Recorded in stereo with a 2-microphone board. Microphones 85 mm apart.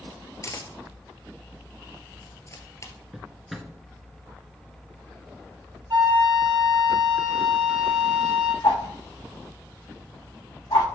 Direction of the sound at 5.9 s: 60° right (ahead or behind).